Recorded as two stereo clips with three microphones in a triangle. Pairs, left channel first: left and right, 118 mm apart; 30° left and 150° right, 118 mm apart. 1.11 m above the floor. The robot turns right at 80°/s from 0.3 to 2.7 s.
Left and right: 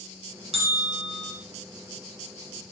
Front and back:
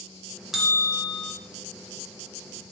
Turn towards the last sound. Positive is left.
turn(degrees=110)